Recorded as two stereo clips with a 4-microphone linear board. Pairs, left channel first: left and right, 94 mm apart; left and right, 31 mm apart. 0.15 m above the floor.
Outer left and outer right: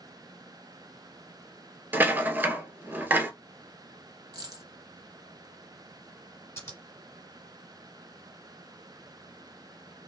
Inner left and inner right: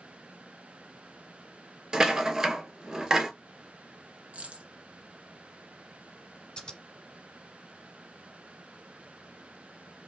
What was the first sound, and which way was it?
A rattle, 20° right (ahead or behind).